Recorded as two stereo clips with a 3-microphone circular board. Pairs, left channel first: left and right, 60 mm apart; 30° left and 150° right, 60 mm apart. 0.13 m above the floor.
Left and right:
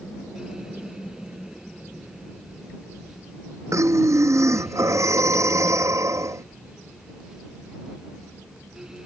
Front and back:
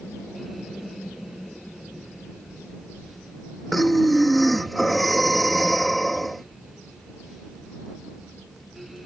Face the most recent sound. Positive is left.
turn(degrees=-60)